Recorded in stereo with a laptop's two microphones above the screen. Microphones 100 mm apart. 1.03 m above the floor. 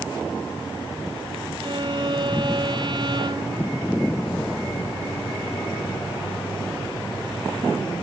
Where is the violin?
50° right (ahead or behind).